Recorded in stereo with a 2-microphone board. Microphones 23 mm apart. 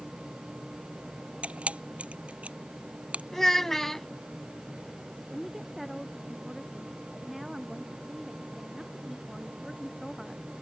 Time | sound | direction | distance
1.4 | a camera shutter | 75° right (ahead or behind) | ?
3.3 | a child speaking | 15° left (ahead or behind) | ?
5.3 | a woman speaking | 10° right (ahead or behind) | ?